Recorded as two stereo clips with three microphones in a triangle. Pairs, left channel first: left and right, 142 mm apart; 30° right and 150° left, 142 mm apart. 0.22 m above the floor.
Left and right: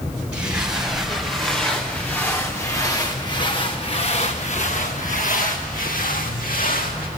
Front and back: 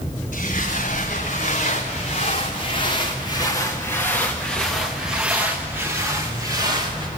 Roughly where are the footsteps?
Ahead.